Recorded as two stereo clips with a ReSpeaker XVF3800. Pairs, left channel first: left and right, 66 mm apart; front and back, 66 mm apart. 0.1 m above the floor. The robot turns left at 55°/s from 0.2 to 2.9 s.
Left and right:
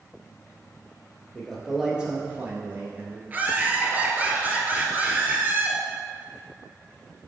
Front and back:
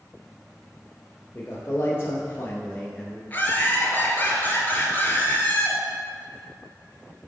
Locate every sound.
1.4 s a man speaking: 15° left, 1.3 m; by 3.2 s 70° right, 1.3 m
3.3 s laughter: 45° right, 1.6 m